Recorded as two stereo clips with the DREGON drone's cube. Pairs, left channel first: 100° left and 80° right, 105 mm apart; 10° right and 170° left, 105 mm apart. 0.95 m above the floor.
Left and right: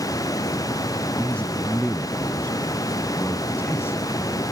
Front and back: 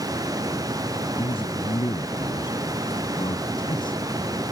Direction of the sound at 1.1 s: 25° left.